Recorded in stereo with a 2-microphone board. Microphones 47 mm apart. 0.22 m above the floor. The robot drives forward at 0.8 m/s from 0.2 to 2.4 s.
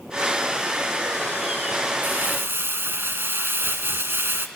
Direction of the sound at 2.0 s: 50° right (ahead or behind).